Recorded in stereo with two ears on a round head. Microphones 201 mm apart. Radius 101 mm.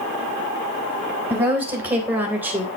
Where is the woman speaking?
10° right (ahead or behind), 3.5 m.